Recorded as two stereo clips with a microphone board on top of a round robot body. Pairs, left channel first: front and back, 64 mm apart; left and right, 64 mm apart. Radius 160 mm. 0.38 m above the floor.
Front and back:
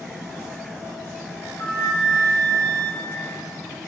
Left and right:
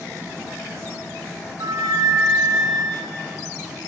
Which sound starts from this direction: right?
A flute, at 1.6 s.